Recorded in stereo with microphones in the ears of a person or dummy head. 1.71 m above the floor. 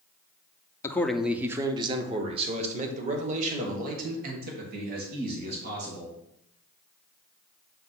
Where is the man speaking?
15° left (ahead or behind), 0.6 m; by 6.2 s 60° right (ahead or behind), 3 m.